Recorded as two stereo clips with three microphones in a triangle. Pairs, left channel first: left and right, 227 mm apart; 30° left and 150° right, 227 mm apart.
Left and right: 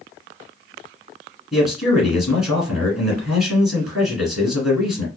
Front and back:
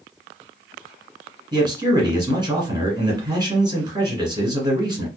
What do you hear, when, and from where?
1.5 s a man speaking: 175° right, 1.6 m